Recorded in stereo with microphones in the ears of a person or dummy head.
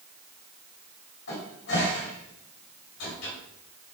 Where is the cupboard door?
75° left (ahead or behind), 3 m.